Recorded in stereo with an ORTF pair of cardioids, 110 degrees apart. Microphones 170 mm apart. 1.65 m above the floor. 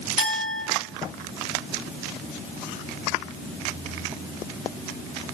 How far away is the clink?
About 2.5 m.